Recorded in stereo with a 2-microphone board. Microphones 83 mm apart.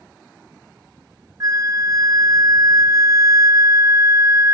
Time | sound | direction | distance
1.4 | a flute | 45° right (ahead or behind) | 0.9 m